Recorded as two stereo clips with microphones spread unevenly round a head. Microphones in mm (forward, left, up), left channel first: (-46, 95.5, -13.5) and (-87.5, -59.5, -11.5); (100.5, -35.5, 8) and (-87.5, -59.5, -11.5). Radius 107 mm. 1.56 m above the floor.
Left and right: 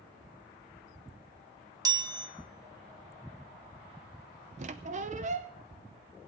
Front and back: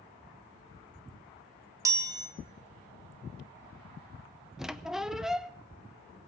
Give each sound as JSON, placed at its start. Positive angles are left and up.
{"t": 1.9, "sound": "a chime", "azimuth_deg": -110, "distance_m": 1.3}
{"t": 4.6, "sound": "a squeak", "azimuth_deg": -80, "distance_m": 0.6}